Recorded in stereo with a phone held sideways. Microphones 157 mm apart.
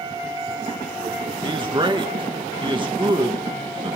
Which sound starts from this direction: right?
A man speaking, at 1.4 s.